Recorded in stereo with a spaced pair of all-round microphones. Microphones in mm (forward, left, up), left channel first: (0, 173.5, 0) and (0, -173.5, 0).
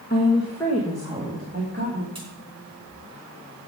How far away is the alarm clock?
No alarm clock in this recording.